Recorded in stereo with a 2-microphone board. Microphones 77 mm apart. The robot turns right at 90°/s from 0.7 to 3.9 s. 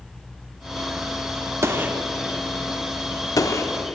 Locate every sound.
1.6 s a gunshot: 35° right (ahead or behind), 0.7 m; by 4.0 s 20° left (ahead or behind), 0.7 m